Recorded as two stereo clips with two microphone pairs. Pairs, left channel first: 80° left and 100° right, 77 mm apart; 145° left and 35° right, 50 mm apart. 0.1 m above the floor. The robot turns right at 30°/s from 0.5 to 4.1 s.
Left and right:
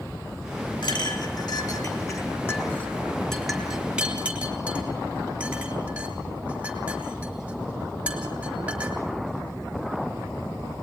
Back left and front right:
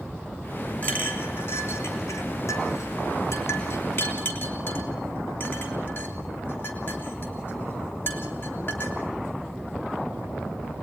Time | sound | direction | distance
0.8 | a clink | 90° left | 3 m